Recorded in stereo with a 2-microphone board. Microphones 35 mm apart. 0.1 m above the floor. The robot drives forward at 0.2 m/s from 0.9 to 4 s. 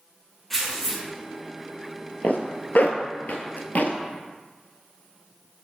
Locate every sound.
0.5 s tearing paper: 5° left (ahead or behind), 1.3 m
2.2 s a zipper: 55° left (ahead or behind), 0.8 m; by 4.0 s 50° left (ahead or behind), 0.8 m